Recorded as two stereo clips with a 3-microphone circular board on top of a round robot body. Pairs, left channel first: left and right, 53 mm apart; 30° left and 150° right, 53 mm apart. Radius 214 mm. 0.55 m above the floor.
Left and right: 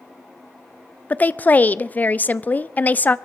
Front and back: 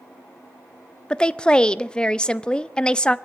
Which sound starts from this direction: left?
A woman speaking, at 1.1 s.